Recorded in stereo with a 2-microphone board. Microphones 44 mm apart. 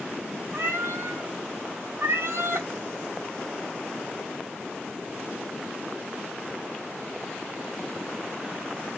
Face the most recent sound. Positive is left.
turn(degrees=-60)  # may be behind; listen again after turning